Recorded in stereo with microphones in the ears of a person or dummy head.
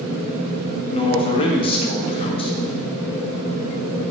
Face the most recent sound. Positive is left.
turn(degrees=30)  # may be behind; listen again after turning